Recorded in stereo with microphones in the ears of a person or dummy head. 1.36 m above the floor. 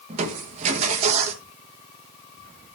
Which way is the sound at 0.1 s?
40° right (ahead or behind).